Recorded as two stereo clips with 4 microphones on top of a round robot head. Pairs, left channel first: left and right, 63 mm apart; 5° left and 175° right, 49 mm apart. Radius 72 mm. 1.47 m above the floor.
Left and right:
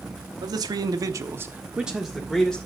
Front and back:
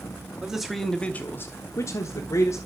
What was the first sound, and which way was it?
A man speaking, 95° right.